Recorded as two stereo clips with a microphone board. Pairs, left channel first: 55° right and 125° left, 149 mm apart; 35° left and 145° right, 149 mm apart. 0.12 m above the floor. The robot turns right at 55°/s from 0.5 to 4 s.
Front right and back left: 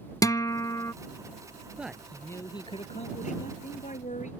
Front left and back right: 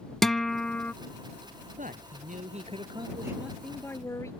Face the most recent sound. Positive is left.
turn(degrees=-35)